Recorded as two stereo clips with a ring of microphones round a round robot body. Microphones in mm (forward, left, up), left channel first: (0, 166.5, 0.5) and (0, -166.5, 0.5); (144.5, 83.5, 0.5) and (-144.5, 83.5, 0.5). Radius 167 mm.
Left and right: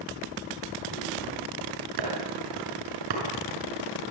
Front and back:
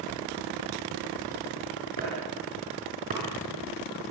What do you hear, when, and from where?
2.0 s chopping: 110° right, 7 m